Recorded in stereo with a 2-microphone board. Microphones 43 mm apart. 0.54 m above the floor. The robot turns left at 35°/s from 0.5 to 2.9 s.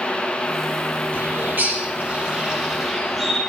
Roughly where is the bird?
Right.